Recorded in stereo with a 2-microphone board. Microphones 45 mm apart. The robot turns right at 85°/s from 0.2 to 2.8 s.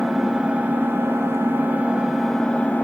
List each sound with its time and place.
0.0 s an engine running: 175° right, 0.9 m; by 2.8 s 50° left, 0.9 m